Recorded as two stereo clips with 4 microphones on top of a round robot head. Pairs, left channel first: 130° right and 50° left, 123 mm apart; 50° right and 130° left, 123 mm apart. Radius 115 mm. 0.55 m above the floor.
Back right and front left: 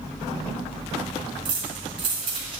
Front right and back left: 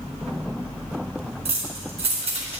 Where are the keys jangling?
95° left, 4 m.